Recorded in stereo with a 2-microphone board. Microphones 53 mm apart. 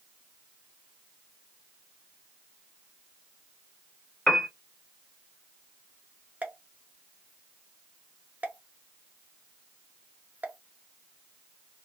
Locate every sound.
4.3 s a piano: 15° left (ahead or behind), 0.6 m
6.4 s a pop: 35° right (ahead or behind), 0.6 m